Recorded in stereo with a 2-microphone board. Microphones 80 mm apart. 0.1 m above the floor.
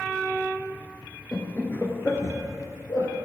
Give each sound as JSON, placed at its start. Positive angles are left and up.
{"t": 1.3, "sound": "laughter", "side_deg": 15, "distance_m": 1.5}